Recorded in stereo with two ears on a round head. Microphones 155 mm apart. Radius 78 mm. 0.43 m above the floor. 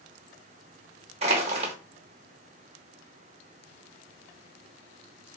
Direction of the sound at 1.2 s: 35° right (ahead or behind).